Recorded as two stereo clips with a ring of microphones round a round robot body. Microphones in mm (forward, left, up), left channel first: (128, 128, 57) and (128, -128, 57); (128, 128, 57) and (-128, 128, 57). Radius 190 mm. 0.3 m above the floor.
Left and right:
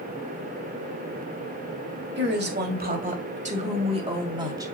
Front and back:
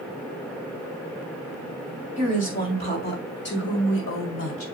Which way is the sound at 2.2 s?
60° right.